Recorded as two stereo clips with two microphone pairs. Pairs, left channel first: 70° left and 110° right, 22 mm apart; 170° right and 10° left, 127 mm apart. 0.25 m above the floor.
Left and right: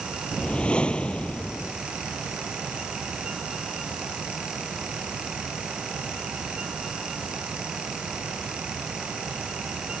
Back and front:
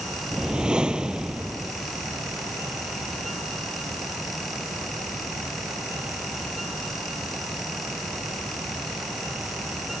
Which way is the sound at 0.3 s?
95° left.